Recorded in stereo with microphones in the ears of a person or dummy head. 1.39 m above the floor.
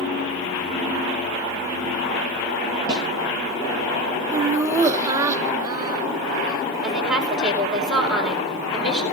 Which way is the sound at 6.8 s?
5° right (ahead or behind).